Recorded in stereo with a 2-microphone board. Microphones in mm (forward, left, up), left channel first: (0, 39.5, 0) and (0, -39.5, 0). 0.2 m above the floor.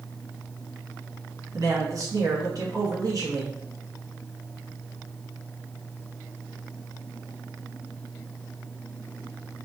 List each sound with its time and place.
1.5 s a man speaking: 50° right (ahead or behind), 2.5 m